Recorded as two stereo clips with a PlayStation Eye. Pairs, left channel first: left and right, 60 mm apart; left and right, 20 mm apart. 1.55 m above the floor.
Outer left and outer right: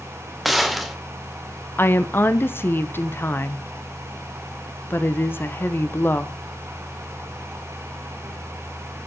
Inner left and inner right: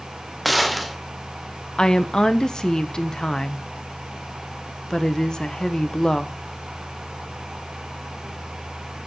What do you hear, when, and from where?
0.5 s a gunshot: centre (ahead or behind), 0.9 m
1.8 s a woman speaking: 35° left (ahead or behind), 0.7 m